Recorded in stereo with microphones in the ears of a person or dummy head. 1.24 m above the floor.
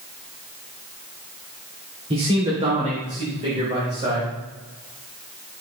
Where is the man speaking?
30° right (ahead or behind), 2.5 m; by 4.3 s 35° right (ahead or behind), 5 m.